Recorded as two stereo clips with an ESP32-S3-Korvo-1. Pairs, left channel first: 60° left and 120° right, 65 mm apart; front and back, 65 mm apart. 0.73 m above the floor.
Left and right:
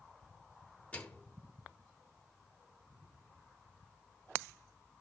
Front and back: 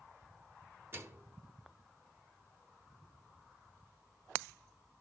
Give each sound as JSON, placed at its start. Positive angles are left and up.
{"t": 0.9, "sound": "a microwave", "azimuth_deg": 130, "distance_m": 1.8}